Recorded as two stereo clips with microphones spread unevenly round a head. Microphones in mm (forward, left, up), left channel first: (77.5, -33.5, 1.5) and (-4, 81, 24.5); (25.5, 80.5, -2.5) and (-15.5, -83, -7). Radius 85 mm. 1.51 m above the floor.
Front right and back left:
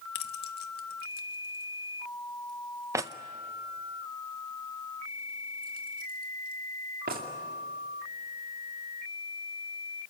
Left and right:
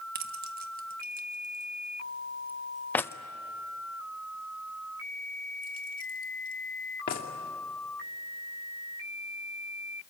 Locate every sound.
0.1 s keys jangling: 75° right, 1.4 m; by 7.3 s 115° left, 2.5 m